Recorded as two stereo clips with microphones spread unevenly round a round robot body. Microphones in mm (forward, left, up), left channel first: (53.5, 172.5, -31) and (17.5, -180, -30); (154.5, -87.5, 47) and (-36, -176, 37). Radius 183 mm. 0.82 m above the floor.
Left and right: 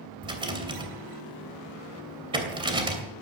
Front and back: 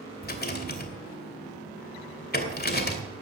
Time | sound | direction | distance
0.2 | a rattle | 20° right | 2.5 m